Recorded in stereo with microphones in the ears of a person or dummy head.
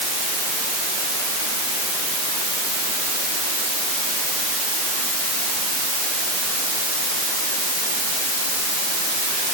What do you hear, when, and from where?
Only background noise.